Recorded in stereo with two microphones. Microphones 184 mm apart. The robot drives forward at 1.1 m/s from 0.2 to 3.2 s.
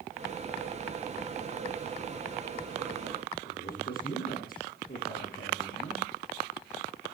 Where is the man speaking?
50° left (ahead or behind), 7.5 m.